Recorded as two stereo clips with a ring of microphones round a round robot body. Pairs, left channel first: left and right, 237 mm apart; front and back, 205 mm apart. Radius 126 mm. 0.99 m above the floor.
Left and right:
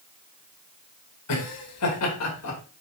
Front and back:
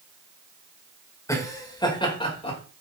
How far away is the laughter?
About 4 m.